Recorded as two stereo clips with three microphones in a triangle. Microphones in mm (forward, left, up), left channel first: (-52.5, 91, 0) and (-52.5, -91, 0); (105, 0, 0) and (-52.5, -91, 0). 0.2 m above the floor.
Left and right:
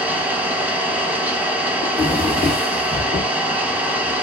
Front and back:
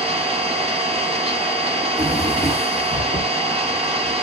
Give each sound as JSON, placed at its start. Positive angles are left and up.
{"t": 0.0, "sound": "an engine running", "azimuth_deg": -165, "distance_m": 0.7}
{"t": 1.8, "sound": "a drawer", "azimuth_deg": -125, "distance_m": 1.4}